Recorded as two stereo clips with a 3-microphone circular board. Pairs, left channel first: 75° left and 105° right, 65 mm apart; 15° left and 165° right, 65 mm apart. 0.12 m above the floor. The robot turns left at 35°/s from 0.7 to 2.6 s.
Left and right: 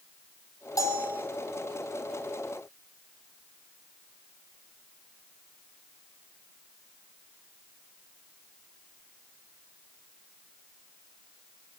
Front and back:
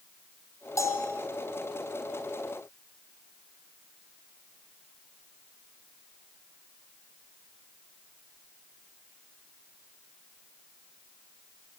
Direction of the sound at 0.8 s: 50° left.